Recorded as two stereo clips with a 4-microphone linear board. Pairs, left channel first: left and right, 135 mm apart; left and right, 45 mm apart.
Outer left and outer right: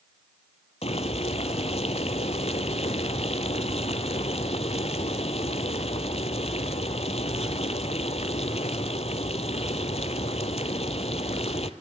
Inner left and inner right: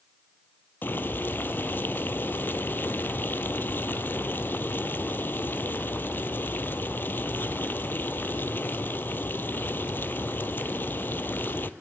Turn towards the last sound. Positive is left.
turn(degrees=50)  # may be behind; listen again after turning